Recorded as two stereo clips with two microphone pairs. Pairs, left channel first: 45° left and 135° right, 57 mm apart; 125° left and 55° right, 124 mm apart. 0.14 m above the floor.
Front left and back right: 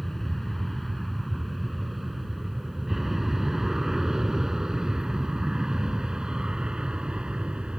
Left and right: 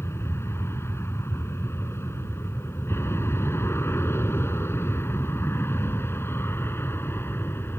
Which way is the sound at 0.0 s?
125° left.